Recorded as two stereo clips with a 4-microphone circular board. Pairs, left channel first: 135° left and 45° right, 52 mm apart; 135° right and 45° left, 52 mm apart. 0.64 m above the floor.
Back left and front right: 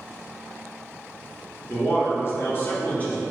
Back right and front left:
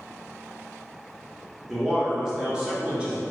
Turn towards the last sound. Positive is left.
turn(degrees=90)